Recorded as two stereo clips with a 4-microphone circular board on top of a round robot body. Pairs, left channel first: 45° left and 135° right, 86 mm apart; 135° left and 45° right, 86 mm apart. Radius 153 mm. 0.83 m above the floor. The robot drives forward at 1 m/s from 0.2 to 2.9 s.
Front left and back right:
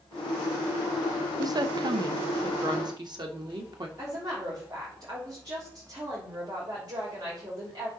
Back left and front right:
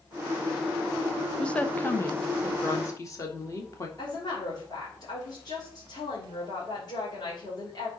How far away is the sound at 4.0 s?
About 3.5 m.